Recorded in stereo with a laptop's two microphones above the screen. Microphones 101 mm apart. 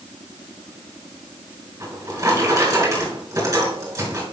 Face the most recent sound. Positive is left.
turn(degrees=-40)  # may be behind; listen again after turning